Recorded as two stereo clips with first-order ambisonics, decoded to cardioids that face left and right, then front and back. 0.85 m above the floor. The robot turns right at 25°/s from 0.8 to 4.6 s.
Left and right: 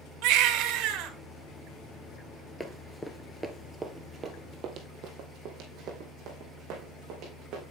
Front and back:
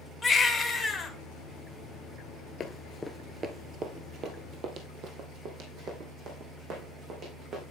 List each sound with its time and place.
0.2 s a baby crying: 70° right, 1.1 m; by 1.1 s 60° right, 1.1 m
2.6 s running footsteps: 10° left, 0.9 m; by 7.6 s 130° right, 3.5 m